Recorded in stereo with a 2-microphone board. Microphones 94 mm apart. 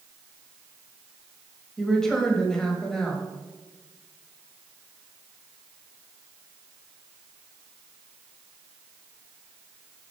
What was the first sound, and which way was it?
A woman speaking, 5° left (ahead or behind).